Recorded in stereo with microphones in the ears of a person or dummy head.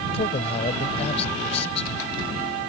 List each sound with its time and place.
0.1 s a man speaking: 35° left (ahead or behind)